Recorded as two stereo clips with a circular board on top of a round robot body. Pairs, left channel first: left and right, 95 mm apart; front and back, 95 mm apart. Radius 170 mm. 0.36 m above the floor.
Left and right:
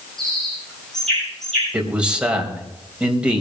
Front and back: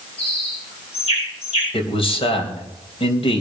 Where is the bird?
5° left, 8 m.